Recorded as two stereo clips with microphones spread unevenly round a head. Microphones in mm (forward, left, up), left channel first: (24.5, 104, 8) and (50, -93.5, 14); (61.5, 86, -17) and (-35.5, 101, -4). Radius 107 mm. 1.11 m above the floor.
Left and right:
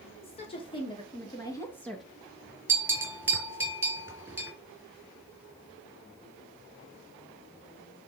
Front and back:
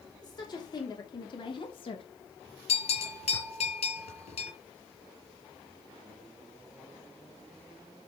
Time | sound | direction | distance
0.2 | a woman speaking | 35° left | 4 m
2.7 | a bell | 5° right | 4 m